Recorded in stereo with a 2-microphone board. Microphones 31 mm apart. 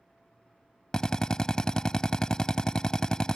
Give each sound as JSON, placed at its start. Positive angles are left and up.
{"t": 0.9, "sound": "a drill", "side_deg": 25}